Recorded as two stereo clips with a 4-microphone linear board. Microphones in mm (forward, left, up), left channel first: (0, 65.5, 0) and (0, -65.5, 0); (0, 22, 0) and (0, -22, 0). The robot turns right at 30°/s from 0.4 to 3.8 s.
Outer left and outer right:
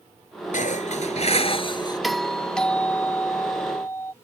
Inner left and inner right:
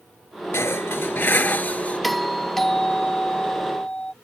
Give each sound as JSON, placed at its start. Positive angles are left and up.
{"t": 0.5, "sound": "dishes clattering", "azimuth_deg": 105}
{"t": 2.0, "sound": "a doorbell", "side_deg": 0}